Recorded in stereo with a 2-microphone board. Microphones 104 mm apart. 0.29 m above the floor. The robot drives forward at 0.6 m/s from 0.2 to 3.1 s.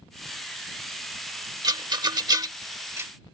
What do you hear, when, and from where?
1.6 s a rattle: 40° right (ahead or behind); by 3.1 s 25° right (ahead or behind)